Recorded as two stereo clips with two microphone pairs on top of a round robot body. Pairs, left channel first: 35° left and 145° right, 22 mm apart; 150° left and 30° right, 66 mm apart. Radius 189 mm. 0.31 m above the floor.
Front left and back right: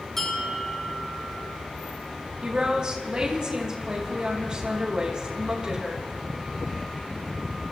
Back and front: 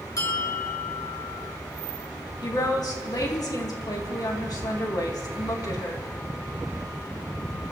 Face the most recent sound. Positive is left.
turn(degrees=165)